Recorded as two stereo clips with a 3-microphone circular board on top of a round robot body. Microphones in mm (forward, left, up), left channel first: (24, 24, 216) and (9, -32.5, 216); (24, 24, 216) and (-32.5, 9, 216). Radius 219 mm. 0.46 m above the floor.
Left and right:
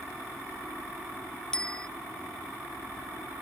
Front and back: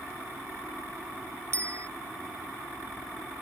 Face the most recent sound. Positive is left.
turn(degrees=155)